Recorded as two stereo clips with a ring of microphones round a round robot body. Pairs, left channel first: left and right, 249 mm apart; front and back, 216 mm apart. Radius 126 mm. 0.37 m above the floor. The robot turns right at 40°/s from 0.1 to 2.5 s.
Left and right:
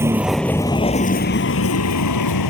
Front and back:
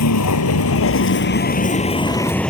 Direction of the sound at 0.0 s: 10° right.